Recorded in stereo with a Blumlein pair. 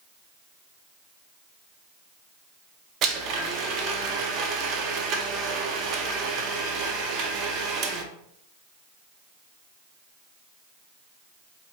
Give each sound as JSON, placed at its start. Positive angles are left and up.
{"t": 3.0, "sound": "a blender", "azimuth_deg": -35, "distance_m": 0.8}